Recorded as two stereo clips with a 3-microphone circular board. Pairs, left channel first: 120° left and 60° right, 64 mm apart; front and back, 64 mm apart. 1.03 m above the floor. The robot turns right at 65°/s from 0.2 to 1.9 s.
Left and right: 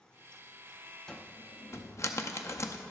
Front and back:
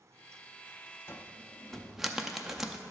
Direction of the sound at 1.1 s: 45° left.